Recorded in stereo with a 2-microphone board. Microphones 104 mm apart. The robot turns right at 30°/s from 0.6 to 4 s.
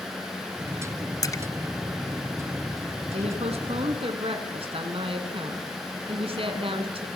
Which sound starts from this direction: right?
A woman speaking, at 3.1 s.